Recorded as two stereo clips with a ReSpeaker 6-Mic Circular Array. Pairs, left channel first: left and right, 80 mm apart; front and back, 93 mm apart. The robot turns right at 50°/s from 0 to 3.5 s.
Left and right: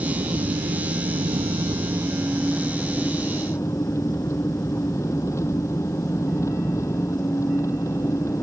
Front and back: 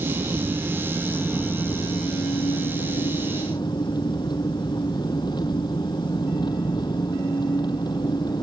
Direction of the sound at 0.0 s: 140° right.